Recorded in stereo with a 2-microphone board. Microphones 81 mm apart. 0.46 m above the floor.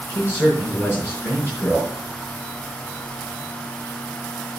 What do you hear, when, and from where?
0.1 s a man speaking: 30° left (ahead or behind), 4 m